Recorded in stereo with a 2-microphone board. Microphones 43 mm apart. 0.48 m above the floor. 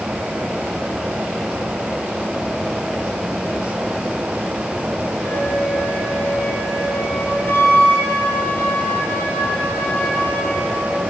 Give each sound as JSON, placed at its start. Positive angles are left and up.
{"t": 5.2, "sound": "a flute", "side_deg": 60, "distance_m": 9.5}